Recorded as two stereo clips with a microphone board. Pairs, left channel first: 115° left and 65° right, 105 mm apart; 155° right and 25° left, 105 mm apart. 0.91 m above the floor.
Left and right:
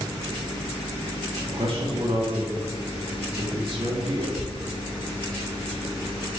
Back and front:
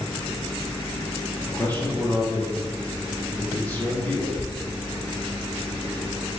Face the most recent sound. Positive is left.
turn(degrees=-85)